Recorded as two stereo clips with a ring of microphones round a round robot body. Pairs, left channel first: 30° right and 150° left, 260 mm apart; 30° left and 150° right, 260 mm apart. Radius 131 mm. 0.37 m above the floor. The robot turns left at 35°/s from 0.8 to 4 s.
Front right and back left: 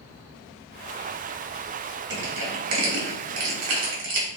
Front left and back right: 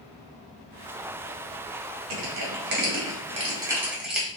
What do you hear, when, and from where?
2.1 s crushing: 170° right, 2.5 m; by 4.3 s 125° left, 2.5 m